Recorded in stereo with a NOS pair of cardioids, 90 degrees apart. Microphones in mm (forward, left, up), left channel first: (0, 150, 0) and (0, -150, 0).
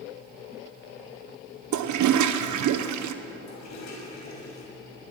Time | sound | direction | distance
1.7 | a toilet flushing | 70° right | 1.3 m
3.5 | a toilet flushing | 65° left | 6.5 m